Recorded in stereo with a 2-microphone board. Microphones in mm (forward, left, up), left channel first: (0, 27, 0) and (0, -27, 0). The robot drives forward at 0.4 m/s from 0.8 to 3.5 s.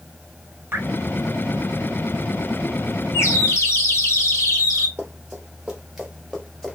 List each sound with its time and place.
0.7 s dripping: 40° right (ahead or behind), 1.6 m
3.1 s a bird: 55° left (ahead or behind), 1.0 m
5.0 s running footsteps: 15° right (ahead or behind), 2.5 m; by 6.8 s 10° left (ahead or behind), 1.7 m